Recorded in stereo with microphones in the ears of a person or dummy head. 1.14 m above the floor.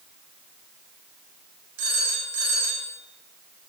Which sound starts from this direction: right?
A phone ringing, at 1.8 s.